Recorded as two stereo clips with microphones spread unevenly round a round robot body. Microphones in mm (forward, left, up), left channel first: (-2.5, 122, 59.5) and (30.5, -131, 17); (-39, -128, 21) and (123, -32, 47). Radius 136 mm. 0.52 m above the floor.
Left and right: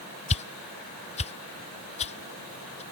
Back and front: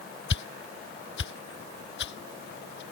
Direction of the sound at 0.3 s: 165° left.